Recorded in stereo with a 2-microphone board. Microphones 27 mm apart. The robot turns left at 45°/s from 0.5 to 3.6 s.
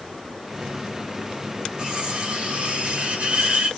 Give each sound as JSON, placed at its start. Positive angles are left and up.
{"t": 1.8, "sound": "cutlery clinking", "azimuth_deg": -35, "distance_m": 1.3}